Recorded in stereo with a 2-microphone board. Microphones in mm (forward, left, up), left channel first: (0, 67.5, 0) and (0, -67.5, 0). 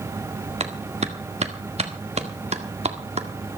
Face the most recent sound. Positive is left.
turn(degrees=-50)  # may be behind; listen again after turning